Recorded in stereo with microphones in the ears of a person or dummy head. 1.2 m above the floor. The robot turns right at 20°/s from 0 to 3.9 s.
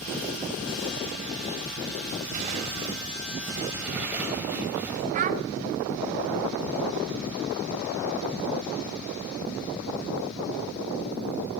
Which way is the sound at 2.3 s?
40° right.